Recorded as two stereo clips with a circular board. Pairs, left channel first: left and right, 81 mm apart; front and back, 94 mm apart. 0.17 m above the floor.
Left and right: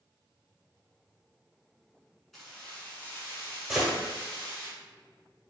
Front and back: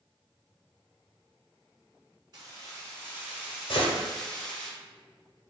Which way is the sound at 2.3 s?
175° left.